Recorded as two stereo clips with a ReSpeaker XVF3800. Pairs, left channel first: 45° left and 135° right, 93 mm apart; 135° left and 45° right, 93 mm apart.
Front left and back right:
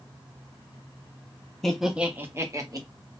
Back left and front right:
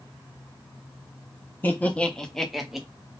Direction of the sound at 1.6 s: 120° left.